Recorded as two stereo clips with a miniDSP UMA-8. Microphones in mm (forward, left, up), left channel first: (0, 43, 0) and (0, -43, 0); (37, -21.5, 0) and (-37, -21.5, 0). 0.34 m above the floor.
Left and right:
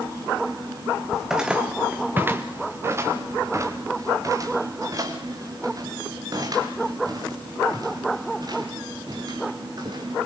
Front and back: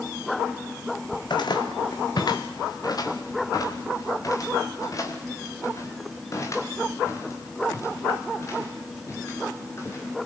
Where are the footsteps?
5° right, 1.3 m; by 10.1 s 50° right, 7 m.